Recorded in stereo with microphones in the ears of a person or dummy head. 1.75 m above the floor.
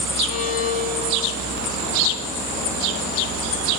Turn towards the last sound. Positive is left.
turn(degrees=40)  # may be behind; listen again after turning